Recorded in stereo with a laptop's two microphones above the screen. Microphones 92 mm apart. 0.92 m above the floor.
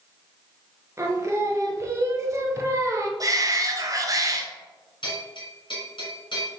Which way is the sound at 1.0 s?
30° right (ahead or behind).